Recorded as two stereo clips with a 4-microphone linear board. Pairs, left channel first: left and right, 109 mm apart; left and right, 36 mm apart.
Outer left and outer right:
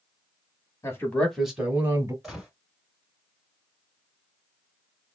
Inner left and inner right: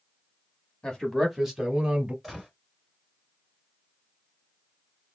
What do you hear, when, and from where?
0.8 s a man speaking: 25° left (ahead or behind), 1.1 m; by 2.1 s 30° right (ahead or behind), 1.3 m
2.2 s a gunshot: centre (ahead or behind), 1.8 m